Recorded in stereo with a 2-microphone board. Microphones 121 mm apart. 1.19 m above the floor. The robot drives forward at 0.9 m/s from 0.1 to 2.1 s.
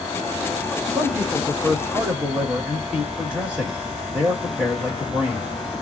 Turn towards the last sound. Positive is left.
turn(degrees=-10)  # may be behind; listen again after turning